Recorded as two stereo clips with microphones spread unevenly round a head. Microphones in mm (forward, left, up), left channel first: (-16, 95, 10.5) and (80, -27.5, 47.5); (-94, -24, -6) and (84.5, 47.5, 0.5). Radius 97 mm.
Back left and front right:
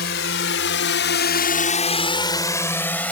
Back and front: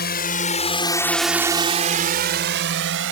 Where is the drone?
160° left; by 3.1 s 45° left.